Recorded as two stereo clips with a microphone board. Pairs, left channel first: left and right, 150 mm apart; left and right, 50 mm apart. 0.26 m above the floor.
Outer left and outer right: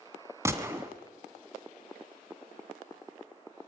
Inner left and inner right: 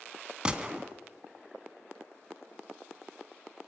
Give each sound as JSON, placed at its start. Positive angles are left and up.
{"t": 0.5, "sound": "a gunshot", "side_deg": -20, "distance_m": 1.6}